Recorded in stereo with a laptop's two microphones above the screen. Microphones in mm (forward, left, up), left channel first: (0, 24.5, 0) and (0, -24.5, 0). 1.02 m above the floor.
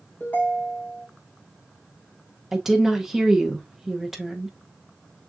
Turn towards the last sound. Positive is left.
turn(degrees=-5)  # may be behind; listen again after turning